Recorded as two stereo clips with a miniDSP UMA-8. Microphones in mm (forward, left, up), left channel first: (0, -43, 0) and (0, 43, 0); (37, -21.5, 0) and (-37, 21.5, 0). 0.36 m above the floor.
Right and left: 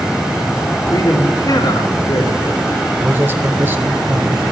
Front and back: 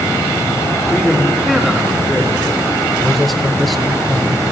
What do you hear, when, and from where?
0.9 s a man speaking: 120° right, 3.5 m
3.0 s a man speaking: 55° left, 0.9 m